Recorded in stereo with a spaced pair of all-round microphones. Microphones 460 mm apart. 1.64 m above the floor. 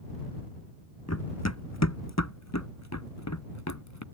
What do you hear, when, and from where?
1.1 s running footsteps: 35° left (ahead or behind)